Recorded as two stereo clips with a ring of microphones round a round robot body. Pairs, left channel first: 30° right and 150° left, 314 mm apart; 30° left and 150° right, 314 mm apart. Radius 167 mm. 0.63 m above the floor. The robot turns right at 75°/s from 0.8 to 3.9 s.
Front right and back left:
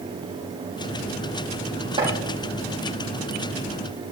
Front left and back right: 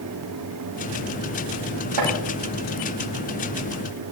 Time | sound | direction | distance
2.0 | chopping | 135° right | 9 m